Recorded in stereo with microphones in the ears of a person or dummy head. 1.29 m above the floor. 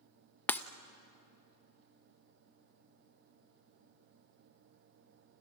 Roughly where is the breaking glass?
Centre.